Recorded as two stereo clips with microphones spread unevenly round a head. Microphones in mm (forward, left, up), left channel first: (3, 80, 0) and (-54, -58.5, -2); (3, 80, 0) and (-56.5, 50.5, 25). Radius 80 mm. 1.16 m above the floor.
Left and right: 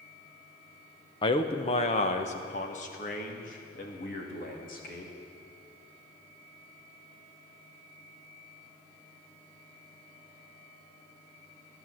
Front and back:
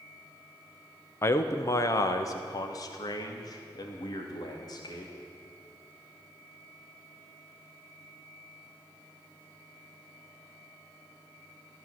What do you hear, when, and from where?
1.2 s a man speaking: 10° left, 0.8 m; by 5.1 s 25° left, 3 m